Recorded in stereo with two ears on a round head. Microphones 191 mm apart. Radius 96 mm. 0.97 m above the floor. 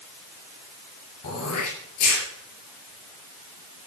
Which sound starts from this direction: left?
Throat clearing, at 1.2 s.